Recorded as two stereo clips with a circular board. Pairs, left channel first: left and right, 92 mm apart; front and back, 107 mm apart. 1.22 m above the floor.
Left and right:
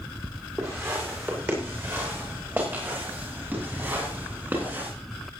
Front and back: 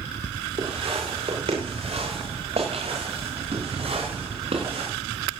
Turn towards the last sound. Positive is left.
turn(degrees=-160)